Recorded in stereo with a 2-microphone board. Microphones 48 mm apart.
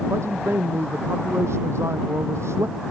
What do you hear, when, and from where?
0.1 s a man speaking: 65° right (ahead or behind)